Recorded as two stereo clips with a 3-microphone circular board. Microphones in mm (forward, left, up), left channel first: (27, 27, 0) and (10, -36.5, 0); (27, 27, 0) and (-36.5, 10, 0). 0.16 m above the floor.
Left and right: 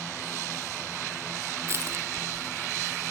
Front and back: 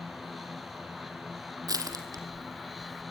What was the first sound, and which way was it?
Crushing, 150° right.